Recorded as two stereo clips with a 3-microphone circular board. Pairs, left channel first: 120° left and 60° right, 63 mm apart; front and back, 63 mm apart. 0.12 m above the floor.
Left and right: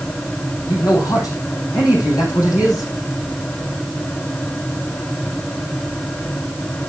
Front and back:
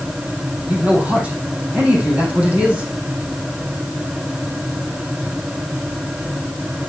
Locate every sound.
0.7 s a man speaking: 115° left, 4 m